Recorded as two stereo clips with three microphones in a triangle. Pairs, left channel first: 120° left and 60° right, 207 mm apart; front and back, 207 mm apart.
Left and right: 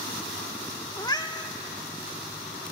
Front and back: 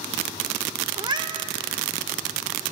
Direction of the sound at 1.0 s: 155° left.